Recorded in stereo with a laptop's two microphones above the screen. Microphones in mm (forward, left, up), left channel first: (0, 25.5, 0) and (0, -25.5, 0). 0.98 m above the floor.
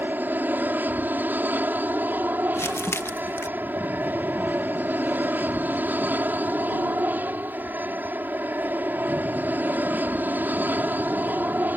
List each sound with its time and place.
0.0 s an aircraft: 40° right (ahead or behind)
2.5 s crumpling: 60° left (ahead or behind)